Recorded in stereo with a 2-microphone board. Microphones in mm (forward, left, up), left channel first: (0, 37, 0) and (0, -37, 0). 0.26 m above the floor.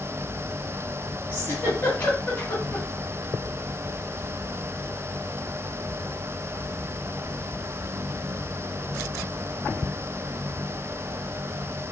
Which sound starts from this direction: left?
A giggle, at 1.3 s.